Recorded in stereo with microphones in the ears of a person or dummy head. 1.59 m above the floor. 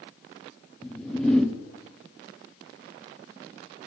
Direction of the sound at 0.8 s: Centre (ahead or behind).